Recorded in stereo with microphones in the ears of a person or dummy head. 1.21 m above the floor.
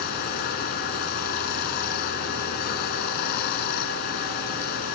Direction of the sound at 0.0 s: 55° left (ahead or behind).